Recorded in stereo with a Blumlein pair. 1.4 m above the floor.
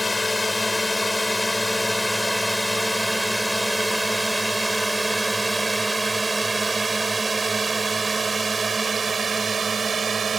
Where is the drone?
10° left; by 10.4 s 20° right.